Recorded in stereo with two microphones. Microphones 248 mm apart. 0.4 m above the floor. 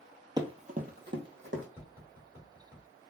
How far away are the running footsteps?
About 0.6 m.